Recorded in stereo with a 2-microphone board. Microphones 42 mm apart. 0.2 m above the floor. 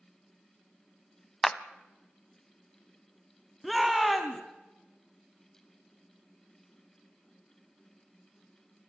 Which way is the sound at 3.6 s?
Centre (ahead or behind).